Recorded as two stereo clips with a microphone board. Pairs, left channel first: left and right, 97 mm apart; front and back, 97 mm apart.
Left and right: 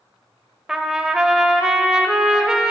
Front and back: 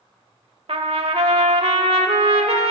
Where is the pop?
No pop in this recording.